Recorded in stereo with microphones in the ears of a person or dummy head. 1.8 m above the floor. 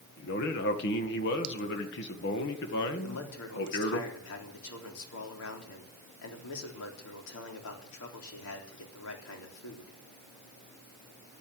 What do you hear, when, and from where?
0.2 s a man speaking: 60° left (ahead or behind), 2 m
3.0 s a man speaking: 75° left (ahead or behind), 3.5 m